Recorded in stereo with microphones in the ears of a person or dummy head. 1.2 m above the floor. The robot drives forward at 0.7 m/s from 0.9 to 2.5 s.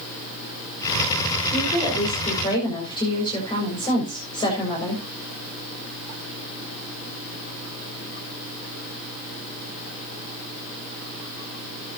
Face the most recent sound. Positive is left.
turn(degrees=20)  # may be behind; listen again after turning